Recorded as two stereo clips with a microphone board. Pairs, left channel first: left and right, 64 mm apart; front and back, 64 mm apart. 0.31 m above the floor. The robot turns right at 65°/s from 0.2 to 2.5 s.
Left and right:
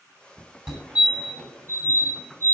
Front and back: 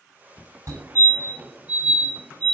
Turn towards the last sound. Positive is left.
turn(degrees=-55)